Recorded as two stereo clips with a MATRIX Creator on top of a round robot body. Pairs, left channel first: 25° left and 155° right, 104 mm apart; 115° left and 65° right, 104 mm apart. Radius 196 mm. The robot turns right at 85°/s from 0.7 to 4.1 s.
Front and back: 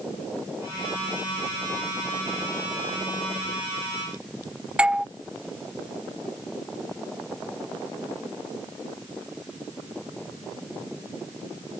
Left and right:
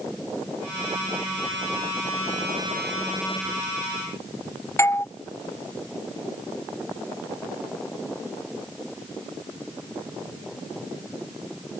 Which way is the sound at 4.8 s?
135° left.